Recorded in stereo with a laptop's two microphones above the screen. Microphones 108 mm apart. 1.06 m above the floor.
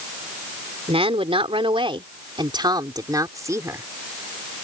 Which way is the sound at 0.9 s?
75° right (ahead or behind).